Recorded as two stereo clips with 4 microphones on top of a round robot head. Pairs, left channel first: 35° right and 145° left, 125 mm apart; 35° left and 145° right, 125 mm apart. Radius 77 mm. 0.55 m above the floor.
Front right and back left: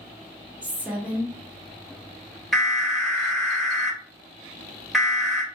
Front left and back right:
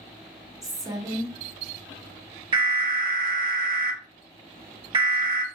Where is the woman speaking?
150° right, 0.8 m.